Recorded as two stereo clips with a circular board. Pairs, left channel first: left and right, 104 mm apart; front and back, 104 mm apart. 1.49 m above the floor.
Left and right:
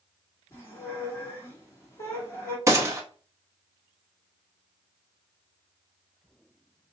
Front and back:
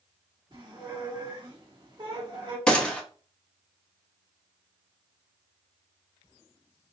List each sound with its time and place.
0.5 s a squeak: 145° left, 1.8 m
2.7 s a gunshot: 75° right, 0.8 m